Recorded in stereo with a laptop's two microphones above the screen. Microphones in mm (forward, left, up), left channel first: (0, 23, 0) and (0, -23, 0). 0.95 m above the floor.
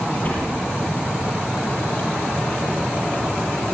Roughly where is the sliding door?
Left.